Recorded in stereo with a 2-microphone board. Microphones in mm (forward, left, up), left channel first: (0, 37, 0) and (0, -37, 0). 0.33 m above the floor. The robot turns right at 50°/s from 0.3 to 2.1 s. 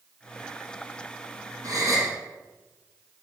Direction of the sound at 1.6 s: 55° right (ahead or behind).